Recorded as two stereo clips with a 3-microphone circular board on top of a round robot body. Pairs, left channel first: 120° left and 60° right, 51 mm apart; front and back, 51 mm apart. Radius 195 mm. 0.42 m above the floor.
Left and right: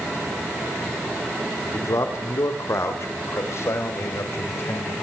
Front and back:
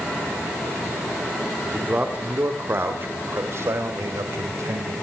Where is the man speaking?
120° left, 2.5 m; by 4.9 s 160° left, 4 m.